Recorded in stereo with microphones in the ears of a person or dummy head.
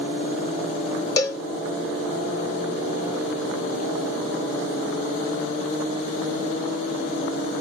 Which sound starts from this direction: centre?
A cowbell, at 1.2 s.